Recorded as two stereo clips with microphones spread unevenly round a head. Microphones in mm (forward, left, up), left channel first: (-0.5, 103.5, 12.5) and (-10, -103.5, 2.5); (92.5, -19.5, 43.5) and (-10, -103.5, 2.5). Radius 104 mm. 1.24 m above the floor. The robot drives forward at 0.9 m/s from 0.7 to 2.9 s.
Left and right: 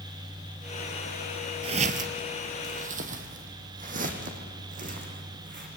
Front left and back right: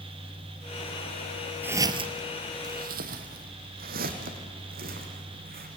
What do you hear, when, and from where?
1.6 s footsteps: 45° right, 1.4 m; by 5.7 s 145° right, 4.5 m